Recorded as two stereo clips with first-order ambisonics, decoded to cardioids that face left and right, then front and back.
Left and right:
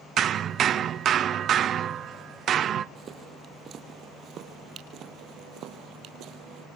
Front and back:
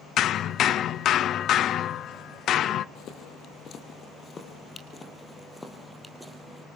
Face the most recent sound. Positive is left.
turn(degrees=-100)